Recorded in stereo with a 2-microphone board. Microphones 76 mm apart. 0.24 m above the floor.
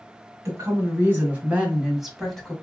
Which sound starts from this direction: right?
A woman speaking, at 0.5 s.